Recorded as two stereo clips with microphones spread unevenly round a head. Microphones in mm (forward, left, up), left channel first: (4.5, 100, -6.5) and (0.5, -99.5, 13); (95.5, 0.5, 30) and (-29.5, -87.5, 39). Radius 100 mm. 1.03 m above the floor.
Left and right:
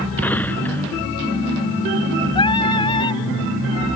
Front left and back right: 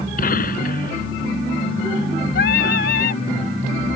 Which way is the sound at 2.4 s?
20° left.